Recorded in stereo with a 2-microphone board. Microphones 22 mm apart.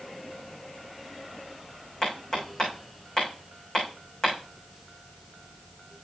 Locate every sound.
2.0 s hammering: 30° left (ahead or behind), 5 m